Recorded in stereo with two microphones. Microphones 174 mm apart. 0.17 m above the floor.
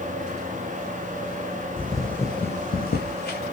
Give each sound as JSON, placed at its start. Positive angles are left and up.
{"t": 1.8, "sound": "footsteps", "side_deg": -15, "distance_m": 0.7}